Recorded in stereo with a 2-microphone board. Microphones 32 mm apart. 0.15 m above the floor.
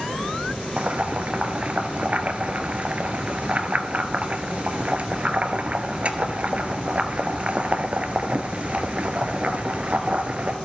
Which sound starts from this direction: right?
Boiling, at 0.8 s.